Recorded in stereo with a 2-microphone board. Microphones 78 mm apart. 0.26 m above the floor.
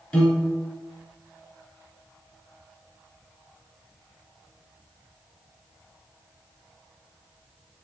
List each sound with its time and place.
0.1 s a piano: 20° left (ahead or behind), 1.2 m